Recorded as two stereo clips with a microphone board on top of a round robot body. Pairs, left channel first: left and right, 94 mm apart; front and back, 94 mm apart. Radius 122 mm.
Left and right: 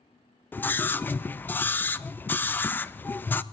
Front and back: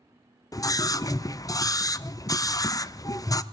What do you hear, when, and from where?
0.5 s a scream: 30° left, 0.6 m